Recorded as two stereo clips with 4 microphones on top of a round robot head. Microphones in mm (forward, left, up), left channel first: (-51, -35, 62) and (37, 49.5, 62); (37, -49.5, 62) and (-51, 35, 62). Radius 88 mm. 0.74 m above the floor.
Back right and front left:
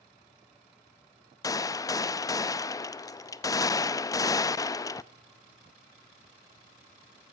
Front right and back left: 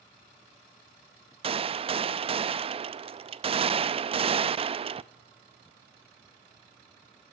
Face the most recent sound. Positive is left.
turn(degrees=165)